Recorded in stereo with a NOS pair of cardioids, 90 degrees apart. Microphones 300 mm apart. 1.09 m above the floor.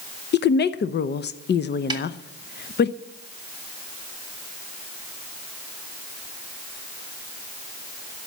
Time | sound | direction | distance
0.3 | a woman speaking | 40° left | 0.7 m
1.9 | a snare drum | 15° right | 1.8 m